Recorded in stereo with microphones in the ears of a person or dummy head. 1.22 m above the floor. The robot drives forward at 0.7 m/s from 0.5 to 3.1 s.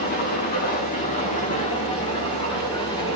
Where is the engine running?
40° left (ahead or behind), 2 m; by 3.2 s 25° left (ahead or behind), 3.5 m.